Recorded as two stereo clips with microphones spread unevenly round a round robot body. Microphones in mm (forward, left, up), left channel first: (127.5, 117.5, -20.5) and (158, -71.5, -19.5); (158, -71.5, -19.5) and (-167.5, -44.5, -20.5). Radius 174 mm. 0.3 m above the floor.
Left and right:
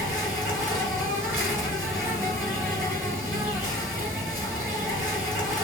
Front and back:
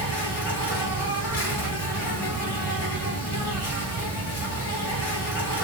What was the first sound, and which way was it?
An insect, 5° right.